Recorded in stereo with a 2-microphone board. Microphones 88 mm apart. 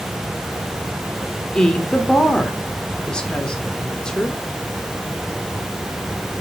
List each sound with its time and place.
1.6 s a woman speaking: 10° left (ahead or behind), 1.3 m